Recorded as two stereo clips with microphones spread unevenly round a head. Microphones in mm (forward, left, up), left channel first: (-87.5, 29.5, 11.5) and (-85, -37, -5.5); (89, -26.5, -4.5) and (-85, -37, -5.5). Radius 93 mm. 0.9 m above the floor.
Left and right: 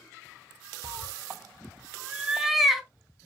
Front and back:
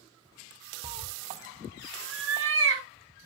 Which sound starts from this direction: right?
A cat meowing, at 0.8 s.